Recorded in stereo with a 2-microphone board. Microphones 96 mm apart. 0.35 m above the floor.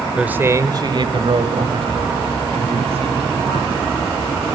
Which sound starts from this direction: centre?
A man speaking, at 0.2 s.